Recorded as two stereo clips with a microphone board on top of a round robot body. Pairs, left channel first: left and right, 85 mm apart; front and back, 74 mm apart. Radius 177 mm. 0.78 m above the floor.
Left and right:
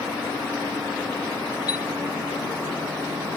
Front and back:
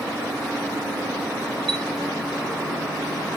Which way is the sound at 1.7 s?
80° left.